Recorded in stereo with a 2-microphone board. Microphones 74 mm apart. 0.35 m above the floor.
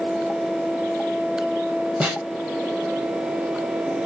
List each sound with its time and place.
2.0 s a snare drum: 15° right (ahead or behind), 1.0 m